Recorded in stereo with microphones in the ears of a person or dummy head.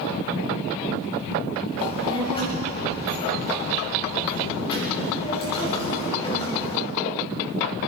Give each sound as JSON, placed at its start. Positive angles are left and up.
{"t": 1.8, "sound": "a child speaking", "side_deg": 30, "distance_m": 5.5}